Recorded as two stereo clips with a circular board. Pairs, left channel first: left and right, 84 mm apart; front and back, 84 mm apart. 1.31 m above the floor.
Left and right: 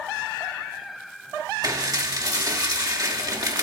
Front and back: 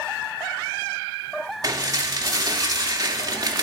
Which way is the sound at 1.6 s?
135° right.